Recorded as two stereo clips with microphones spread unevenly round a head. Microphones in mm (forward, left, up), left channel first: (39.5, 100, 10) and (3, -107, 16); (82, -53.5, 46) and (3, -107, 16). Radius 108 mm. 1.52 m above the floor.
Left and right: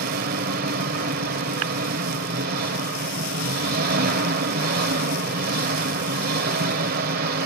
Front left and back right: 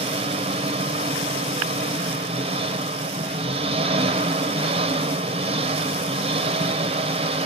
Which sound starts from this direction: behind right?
An engine running, at 0.0 s.